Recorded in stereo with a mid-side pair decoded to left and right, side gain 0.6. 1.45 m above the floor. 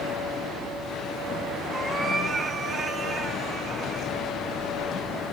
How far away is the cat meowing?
About 4 m.